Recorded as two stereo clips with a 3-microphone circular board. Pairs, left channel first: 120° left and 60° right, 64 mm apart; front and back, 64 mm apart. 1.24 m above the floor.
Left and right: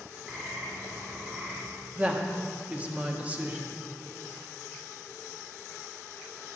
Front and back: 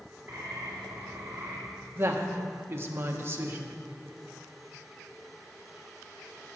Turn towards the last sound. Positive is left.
turn(degrees=-125)